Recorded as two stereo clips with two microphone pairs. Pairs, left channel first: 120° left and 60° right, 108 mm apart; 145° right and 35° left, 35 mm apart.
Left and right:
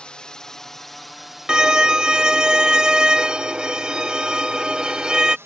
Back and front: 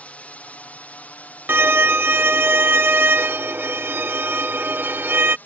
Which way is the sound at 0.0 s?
160° right.